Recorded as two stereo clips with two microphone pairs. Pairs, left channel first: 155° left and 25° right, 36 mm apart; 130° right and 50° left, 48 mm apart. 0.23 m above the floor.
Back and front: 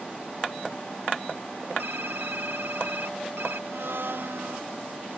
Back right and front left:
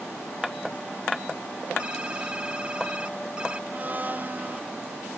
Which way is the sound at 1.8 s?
15° right.